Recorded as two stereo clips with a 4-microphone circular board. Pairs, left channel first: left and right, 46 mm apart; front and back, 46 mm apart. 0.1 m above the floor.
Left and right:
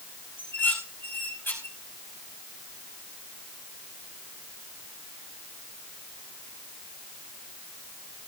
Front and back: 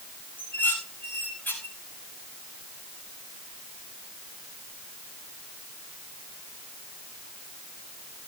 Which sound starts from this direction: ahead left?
Dishes clattering, at 0.4 s.